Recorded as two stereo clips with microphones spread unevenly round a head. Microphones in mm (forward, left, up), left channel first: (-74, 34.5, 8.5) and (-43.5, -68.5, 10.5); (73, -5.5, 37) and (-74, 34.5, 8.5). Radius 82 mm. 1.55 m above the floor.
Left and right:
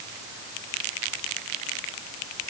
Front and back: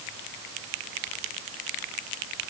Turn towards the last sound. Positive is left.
No sound to turn to.